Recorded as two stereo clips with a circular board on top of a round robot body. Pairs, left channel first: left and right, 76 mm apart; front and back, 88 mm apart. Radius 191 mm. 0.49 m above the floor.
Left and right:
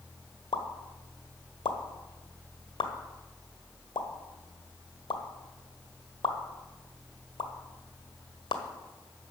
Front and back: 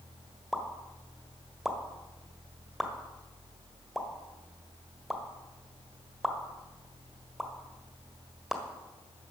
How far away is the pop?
About 1.6 m.